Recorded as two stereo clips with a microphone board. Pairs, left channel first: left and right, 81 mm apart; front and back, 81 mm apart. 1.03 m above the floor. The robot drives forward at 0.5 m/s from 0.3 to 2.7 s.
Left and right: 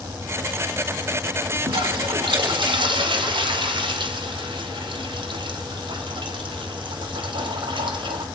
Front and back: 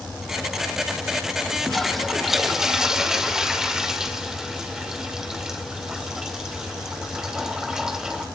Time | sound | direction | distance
1.7 | a toilet flushing | 85° right | 2.5 m